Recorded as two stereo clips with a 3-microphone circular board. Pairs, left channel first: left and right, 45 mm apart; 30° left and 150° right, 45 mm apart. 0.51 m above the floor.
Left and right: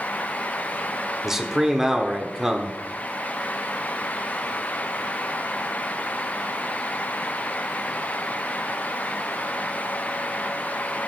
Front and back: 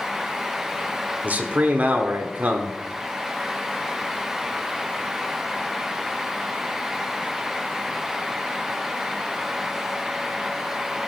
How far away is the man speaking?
About 1.5 m.